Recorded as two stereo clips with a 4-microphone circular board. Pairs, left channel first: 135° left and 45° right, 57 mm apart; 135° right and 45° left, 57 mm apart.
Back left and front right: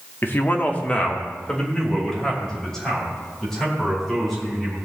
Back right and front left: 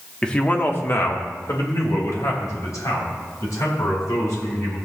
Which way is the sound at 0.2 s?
155° left.